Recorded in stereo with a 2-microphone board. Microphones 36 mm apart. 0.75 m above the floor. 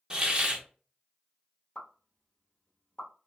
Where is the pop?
25° left (ahead or behind), 1.0 m.